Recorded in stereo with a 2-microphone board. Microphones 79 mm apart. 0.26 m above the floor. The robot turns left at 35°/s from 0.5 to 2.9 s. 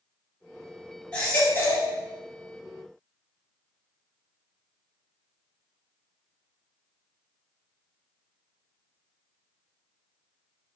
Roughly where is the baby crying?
Centre.